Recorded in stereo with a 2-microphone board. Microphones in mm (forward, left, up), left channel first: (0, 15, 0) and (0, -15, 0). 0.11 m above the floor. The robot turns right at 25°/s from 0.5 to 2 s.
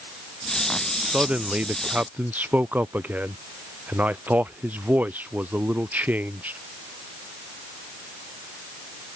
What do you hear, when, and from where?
1.0 s a man speaking: 40° right (ahead or behind); by 6.6 s 65° right (ahead or behind)